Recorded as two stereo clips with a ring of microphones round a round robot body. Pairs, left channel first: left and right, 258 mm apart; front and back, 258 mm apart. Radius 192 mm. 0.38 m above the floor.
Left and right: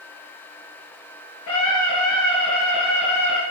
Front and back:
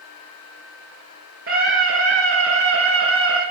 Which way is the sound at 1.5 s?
135° left.